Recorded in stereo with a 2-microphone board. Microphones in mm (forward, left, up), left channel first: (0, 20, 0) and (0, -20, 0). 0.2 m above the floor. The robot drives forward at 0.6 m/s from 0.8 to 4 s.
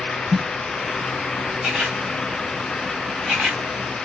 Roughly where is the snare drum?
Centre.